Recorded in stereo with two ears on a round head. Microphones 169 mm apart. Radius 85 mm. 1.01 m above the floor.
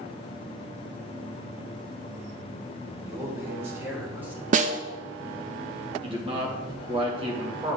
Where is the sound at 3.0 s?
20° right (ahead or behind), 1.4 m; by 4.4 s 10° right (ahead or behind), 2 m.